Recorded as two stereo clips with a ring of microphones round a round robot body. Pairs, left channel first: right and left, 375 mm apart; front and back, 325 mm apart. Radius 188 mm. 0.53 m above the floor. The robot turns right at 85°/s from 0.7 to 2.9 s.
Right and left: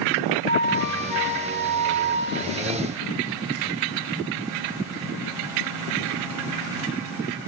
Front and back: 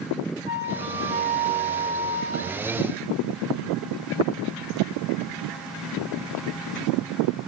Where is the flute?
150° right, 1.8 m; by 2.6 s 15° left, 1.8 m.